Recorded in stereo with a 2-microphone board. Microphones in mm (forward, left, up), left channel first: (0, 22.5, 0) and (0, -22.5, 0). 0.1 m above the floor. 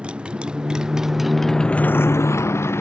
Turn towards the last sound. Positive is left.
turn(degrees=65)  # may be behind; listen again after turning